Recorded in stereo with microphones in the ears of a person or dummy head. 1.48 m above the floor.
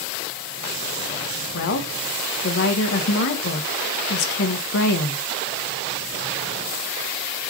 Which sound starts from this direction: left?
A woman speaking, at 1.5 s.